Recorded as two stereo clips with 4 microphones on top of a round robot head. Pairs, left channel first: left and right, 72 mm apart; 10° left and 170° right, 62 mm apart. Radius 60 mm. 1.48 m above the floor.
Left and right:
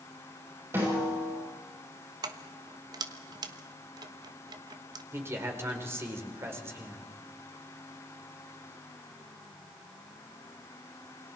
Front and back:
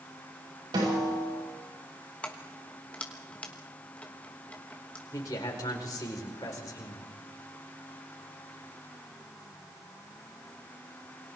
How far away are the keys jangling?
About 1.2 m.